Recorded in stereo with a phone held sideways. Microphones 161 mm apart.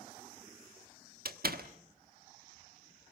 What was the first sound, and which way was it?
A door slam, 70° right (ahead or behind).